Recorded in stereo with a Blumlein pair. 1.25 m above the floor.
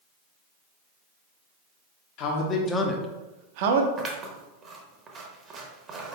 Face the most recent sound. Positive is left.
turn(degrees=-25)